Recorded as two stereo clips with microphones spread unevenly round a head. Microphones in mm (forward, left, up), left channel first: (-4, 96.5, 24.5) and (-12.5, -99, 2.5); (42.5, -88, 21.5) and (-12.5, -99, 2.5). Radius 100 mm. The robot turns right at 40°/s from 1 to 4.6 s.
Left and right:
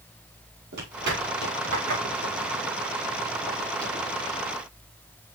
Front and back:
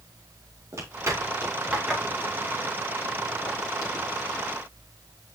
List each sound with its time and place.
0.7 s footsteps: 135° right, 6.5 m; by 4.1 s 15° left, 6 m